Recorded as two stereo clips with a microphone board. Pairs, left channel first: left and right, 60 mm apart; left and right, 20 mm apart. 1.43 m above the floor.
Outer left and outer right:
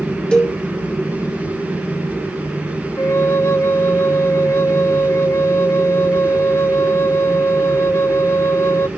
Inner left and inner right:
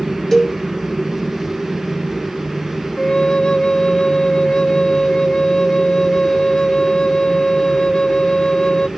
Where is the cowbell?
15° left (ahead or behind), 1.8 m.